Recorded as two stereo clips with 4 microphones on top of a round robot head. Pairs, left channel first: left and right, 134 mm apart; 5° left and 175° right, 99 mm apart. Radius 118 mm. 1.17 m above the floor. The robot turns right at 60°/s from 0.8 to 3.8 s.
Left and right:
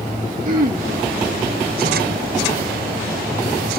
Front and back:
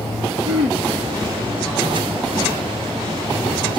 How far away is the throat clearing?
About 1.1 m.